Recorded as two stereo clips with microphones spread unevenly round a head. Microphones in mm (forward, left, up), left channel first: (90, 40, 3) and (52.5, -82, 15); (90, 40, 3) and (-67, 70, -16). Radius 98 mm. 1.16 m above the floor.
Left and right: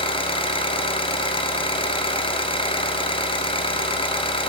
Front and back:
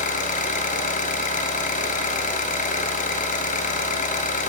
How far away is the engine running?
About 4 m.